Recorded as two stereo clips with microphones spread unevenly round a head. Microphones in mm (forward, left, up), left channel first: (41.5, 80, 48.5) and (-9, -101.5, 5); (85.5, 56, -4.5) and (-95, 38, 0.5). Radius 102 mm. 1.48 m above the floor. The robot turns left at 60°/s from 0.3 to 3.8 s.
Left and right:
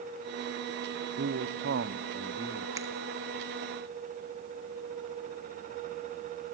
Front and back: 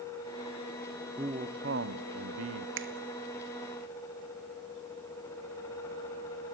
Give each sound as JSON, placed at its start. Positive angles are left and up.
{"t": 1.2, "sound": "a man speaking", "azimuth_deg": -100, "distance_m": 0.9}
{"t": 2.8, "sound": "a finger snap", "azimuth_deg": 180, "distance_m": 1.7}